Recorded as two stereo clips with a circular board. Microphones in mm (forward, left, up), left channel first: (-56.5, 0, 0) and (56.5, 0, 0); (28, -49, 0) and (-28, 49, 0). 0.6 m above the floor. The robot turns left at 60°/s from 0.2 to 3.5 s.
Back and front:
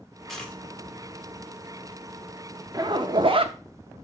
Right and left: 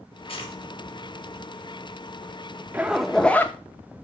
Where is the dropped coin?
90° right, 1.5 m; by 0.6 s 105° right, 1.5 m.